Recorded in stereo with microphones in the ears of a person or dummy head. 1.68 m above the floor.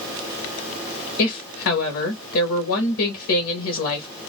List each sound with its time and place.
1.2 s a woman speaking: 70° left (ahead or behind), 1.0 m